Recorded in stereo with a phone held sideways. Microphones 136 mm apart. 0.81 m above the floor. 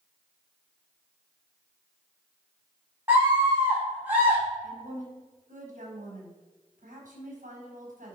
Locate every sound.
3.1 s a scream: 20° right (ahead or behind), 5 m
4.6 s a woman speaking: 75° right (ahead or behind), 5 m